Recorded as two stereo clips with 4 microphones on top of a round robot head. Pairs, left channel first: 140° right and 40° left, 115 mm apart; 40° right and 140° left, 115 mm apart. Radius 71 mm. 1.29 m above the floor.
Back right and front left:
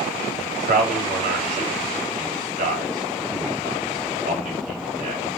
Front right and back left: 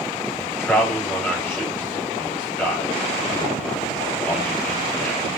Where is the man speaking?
35° left, 3.5 m.